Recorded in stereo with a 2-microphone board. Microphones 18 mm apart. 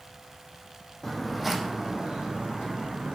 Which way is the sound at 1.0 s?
15° left (ahead or behind).